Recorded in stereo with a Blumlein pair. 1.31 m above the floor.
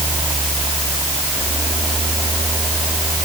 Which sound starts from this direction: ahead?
A fan, at 0.0 s.